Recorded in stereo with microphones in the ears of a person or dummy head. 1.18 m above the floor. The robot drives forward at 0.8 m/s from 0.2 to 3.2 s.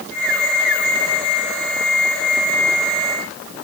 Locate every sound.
Only background noise.